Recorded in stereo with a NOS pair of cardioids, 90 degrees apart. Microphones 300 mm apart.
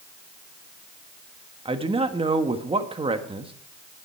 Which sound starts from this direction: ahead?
A man speaking, at 1.6 s.